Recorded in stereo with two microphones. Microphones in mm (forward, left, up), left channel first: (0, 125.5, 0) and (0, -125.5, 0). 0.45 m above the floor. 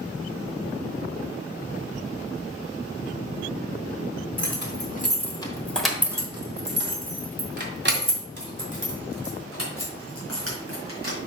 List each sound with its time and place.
4.4 s keys jangling: 50° left (ahead or behind), 1.4 m; by 11.2 s 65° right (ahead or behind), 4.5 m